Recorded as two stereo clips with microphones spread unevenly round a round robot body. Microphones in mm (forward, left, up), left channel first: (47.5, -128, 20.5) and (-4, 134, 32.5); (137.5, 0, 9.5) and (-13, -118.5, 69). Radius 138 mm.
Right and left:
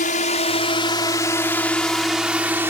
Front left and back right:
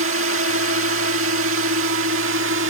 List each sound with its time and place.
0.0 s a drone: 135° right; by 2.7 s straight behind